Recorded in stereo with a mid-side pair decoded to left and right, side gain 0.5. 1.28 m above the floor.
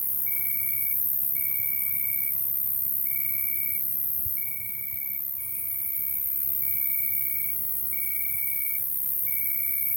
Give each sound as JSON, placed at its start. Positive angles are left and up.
{"t": 0.0, "sound": "an insect", "azimuth_deg": 5, "distance_m": 1.5}